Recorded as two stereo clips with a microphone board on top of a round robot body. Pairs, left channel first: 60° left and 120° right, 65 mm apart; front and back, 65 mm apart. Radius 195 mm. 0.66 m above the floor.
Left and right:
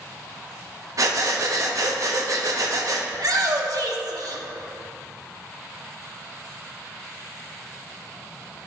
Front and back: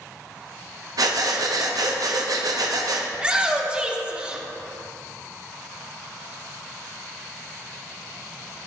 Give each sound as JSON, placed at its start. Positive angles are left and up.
{"t": 1.0, "sound": "breathing", "azimuth_deg": -155, "distance_m": 1.1}
{"t": 3.1, "sound": "a shout", "azimuth_deg": -105, "distance_m": 1.8}